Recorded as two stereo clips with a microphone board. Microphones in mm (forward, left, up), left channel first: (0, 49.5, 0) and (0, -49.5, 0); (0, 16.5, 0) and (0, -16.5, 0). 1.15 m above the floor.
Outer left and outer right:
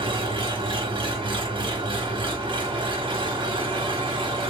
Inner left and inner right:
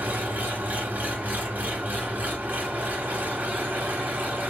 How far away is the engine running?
About 1.4 m.